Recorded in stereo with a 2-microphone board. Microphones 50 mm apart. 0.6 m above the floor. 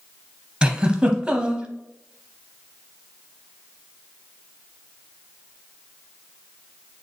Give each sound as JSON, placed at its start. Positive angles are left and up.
{"t": 0.6, "sound": "a giggle", "side_deg": -15, "distance_m": 0.8}